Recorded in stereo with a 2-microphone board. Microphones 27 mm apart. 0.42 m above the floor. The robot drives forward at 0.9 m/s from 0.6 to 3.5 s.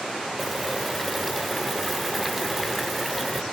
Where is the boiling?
5° right (ahead or behind), 1.9 m.